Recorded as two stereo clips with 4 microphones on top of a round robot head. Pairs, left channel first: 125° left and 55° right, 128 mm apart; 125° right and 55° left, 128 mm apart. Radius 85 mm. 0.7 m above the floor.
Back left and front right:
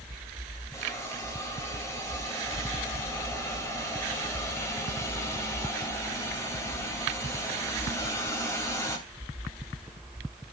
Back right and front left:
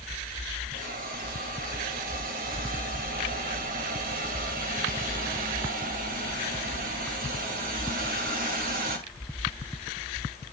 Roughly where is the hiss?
Ahead left.